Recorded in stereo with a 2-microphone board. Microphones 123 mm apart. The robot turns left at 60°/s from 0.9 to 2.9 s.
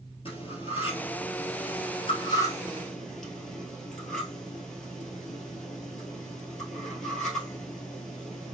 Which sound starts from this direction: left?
Cutlery clinking, at 0.2 s.